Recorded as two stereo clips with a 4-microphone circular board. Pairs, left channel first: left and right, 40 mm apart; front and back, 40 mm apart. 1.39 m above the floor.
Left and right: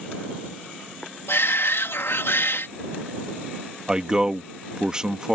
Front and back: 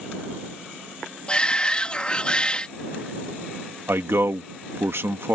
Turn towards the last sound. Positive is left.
turn(degrees=-165)